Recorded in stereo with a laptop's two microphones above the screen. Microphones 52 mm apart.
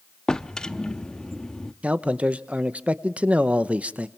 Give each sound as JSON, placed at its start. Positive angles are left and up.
{"t": 0.3, "sound": "a drawer", "side_deg": 15, "distance_m": 0.9}
{"t": 1.8, "sound": "a man speaking", "side_deg": -25, "distance_m": 0.8}